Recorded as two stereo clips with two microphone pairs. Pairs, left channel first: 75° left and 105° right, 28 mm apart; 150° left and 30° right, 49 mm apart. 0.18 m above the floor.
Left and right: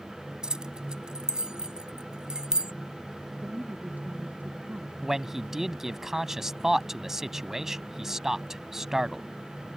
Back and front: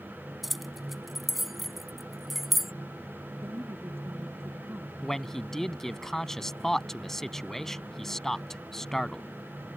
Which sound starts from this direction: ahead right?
A woman speaking, at 3.4 s.